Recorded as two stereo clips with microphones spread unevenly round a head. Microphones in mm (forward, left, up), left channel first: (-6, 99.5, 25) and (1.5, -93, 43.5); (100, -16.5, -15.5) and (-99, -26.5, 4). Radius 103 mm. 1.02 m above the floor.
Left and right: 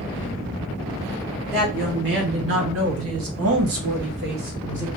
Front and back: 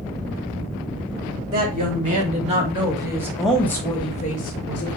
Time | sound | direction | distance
1.5 | a woman speaking | 125° right | 2 m